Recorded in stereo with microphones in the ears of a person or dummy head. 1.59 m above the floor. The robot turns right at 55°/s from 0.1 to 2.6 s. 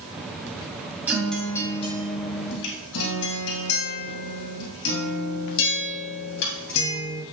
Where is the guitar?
10° right, 2.5 m; by 7.2 s 70° left, 2.5 m.